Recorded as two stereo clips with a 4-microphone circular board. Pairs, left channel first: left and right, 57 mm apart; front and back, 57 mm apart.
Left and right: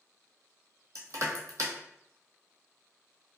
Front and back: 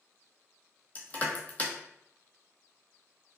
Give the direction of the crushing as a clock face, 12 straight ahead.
2 o'clock.